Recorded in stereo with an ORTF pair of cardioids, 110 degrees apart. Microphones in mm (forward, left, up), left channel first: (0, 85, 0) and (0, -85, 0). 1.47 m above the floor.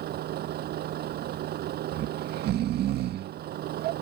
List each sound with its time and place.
0.0 s a vehicle: 65° right
1.9 s snoring: 70° right